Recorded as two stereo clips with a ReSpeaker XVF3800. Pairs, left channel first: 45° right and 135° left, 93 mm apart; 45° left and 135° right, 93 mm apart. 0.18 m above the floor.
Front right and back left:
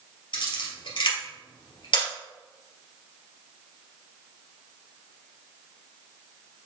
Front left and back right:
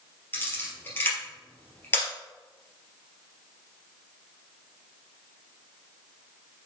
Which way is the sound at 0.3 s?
20° right.